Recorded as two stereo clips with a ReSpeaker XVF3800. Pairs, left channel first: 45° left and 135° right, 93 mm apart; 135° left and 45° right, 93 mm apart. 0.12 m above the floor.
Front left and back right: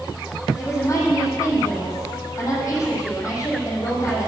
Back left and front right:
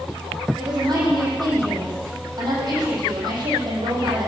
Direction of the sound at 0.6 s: 10° right.